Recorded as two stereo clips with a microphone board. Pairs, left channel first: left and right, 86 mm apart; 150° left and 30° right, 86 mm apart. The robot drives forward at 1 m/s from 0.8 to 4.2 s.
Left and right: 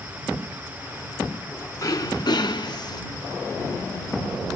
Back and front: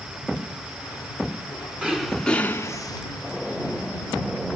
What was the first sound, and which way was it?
Throat clearing, 45° left.